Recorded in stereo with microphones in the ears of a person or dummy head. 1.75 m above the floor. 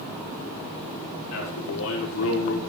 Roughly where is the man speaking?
Left.